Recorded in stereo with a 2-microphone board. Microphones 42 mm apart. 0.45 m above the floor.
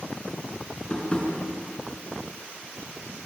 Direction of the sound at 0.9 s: 25° left (ahead or behind).